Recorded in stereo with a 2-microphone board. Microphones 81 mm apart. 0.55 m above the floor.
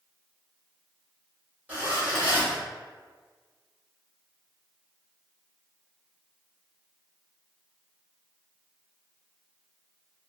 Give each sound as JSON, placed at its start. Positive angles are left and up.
{"t": 1.7, "sound": "a zipper", "side_deg": -20, "distance_m": 1.5}